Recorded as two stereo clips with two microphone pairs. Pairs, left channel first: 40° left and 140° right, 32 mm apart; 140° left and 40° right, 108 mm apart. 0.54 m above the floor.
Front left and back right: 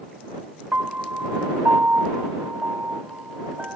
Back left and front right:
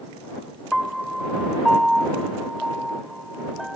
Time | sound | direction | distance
0.7 | a piano | 125° right | ?